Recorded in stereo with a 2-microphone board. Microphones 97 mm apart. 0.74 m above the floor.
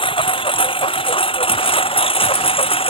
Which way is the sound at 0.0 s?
60° left (ahead or behind).